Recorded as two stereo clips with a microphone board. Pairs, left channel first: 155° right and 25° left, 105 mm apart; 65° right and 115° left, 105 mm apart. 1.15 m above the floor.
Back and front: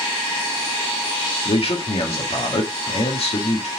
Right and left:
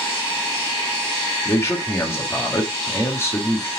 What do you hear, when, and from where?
1.4 s a man speaking: 135° right, 1.7 m